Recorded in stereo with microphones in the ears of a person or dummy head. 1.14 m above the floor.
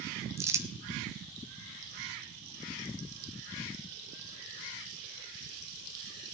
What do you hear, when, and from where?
0.4 s crumpling: 10° right (ahead or behind), 0.6 m